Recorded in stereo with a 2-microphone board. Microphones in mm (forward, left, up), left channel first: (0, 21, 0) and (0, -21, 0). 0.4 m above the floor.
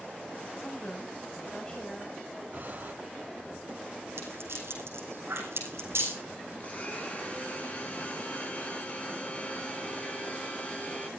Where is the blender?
35° left (ahead or behind), 6 m.